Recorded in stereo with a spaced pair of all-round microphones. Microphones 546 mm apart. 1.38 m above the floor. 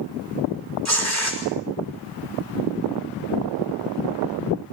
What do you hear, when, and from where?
0.8 s tearing paper: 30° right (ahead or behind), 4.5 m